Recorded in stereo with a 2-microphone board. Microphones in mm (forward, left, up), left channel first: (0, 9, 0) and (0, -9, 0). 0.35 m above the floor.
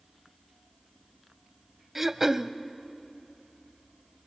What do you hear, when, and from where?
1.9 s throat clearing: 25° right (ahead or behind), 0.5 m